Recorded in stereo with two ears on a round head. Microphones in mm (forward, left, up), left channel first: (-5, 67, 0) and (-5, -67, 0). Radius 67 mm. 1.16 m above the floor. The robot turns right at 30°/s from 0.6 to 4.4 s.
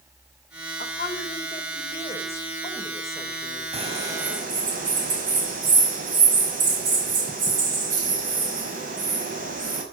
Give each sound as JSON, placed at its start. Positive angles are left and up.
{"t": 0.8, "sound": "a woman speaking", "azimuth_deg": 115, "distance_m": 5.0}
{"t": 3.7, "sound": "a bird", "side_deg": -40, "distance_m": 5.0}